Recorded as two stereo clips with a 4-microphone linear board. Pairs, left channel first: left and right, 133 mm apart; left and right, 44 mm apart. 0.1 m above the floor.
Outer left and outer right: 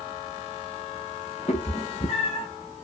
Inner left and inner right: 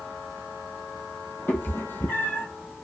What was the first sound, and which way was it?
A cat meowing, 55° left (ahead or behind).